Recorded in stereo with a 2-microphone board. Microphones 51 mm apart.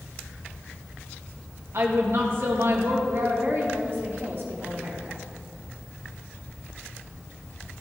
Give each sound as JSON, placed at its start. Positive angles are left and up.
{"t": 1.7, "sound": "a woman speaking", "side_deg": -60, "distance_m": 2.0}
{"t": 3.1, "sound": "a woman speaking", "side_deg": -55, "distance_m": 3.5}